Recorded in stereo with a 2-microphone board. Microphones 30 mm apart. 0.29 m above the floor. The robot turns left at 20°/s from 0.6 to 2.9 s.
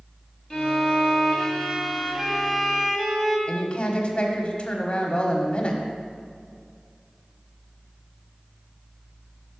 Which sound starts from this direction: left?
A woman speaking, at 3.5 s.